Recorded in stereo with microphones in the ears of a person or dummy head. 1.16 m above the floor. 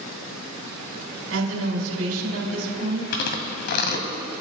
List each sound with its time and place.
1.3 s a woman speaking: 80° right, 4.5 m
3.1 s chewing: 50° left (ahead or behind), 1.7 m